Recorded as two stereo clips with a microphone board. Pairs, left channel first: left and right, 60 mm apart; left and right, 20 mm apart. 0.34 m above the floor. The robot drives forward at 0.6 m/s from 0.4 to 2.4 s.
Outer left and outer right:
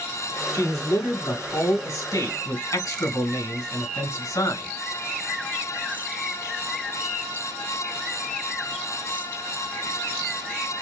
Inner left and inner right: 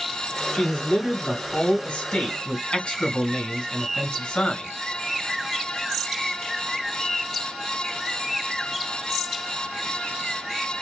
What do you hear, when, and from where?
0.5 s a man speaking: 60° left (ahead or behind), 3 m; by 4.7 s 70° left (ahead or behind), 3 m